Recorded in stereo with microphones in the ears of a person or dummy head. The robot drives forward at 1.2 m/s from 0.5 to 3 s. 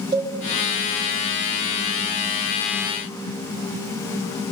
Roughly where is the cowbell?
Right.